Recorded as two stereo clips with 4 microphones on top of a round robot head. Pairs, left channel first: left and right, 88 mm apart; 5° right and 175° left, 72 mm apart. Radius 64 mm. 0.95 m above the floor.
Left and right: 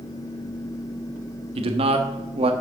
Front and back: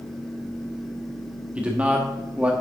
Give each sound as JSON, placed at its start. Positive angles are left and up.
{"t": 1.6, "sound": "a man speaking", "azimuth_deg": -110, "distance_m": 1.3}